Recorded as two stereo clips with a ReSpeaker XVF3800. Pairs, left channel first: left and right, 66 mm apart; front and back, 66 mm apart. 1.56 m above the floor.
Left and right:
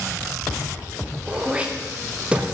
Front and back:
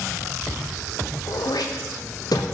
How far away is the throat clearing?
About 0.6 m.